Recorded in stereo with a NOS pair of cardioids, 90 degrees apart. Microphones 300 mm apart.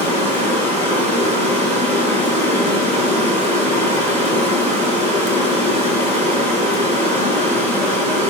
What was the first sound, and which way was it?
Running water, 20° right.